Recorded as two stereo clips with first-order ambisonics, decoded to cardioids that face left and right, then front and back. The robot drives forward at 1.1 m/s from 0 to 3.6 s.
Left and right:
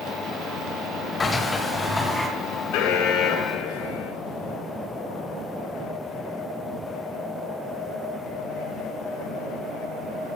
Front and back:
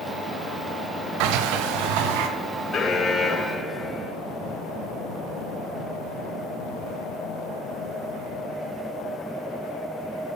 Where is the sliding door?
165° left, 1.2 m; by 2.3 s 170° left, 2.5 m.